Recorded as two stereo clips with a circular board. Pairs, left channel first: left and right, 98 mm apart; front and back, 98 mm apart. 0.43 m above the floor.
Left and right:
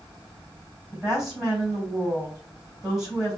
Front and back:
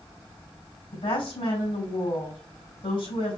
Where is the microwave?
No microwave in this recording.